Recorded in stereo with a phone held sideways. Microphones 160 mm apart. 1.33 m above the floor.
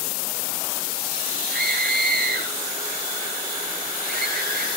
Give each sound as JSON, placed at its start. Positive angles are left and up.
{"t": 1.5, "sound": "a scream", "side_deg": -80, "distance_m": 10.0}